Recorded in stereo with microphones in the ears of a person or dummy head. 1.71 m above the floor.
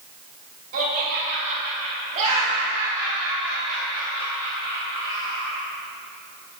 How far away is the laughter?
About 3 m.